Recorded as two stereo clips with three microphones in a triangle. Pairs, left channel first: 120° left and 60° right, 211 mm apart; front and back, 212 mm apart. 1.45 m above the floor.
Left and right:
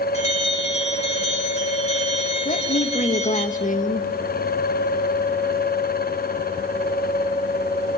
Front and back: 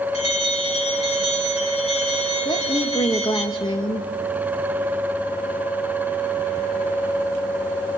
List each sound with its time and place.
0.1 s a bell: 60° left, 3 m
2.5 s a woman speaking: 70° left, 1.6 m